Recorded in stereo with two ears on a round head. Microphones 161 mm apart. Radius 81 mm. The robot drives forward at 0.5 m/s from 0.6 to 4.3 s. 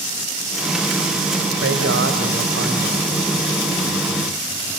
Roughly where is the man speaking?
Right.